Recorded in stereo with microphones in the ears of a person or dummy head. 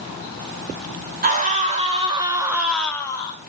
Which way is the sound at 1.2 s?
40° right (ahead or behind).